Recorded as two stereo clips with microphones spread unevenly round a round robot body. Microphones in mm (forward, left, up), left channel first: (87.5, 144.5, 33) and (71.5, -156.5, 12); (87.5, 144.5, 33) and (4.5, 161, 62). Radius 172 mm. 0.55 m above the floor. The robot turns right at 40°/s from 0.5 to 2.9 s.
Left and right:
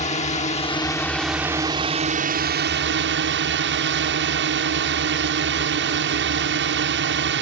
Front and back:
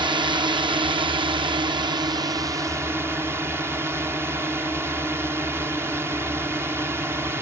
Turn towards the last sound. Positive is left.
turn(degrees=-115)